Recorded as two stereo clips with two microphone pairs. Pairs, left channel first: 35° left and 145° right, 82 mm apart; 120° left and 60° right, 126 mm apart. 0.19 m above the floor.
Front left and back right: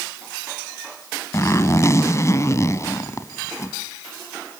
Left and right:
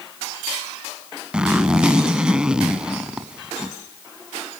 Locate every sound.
1.3 s a zipper: 20° left, 1.5 m